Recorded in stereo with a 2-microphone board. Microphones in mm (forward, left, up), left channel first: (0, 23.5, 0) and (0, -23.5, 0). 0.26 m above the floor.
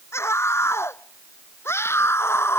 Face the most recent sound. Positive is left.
turn(degrees=60)  # may be behind; listen again after turning